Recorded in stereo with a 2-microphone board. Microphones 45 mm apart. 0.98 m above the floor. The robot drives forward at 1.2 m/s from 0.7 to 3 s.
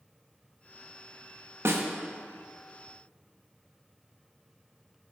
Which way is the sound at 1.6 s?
70° right (ahead or behind).